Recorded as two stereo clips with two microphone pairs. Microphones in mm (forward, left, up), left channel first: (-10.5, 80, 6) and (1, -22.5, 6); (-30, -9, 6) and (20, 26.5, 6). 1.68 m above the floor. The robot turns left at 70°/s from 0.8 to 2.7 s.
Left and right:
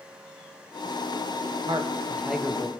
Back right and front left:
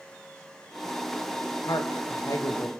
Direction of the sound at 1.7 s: 125° right.